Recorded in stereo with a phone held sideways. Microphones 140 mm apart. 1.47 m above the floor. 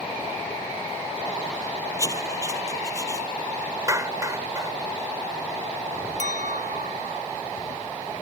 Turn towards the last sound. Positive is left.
turn(degrees=-70)  # may be behind; listen again after turning